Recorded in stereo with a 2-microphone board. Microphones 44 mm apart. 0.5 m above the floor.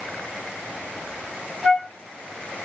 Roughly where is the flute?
Centre.